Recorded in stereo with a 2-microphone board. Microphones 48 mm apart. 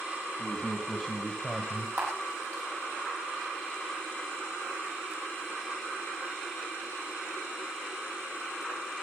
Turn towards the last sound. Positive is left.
turn(degrees=-45)  # may be behind; listen again after turning